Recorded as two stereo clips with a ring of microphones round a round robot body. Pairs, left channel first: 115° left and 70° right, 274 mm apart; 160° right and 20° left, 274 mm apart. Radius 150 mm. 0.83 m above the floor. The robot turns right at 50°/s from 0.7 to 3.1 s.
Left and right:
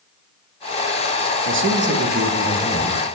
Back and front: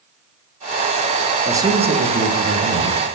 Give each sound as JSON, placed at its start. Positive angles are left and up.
{"t": 1.4, "sound": "a man speaking", "azimuth_deg": -55, "distance_m": 1.2}